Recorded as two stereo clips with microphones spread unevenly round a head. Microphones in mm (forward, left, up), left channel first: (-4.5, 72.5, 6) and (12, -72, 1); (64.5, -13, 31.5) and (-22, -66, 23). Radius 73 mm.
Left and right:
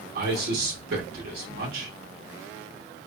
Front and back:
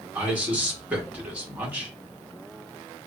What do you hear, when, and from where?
0.1 s a man speaking: 80° right, 1.5 m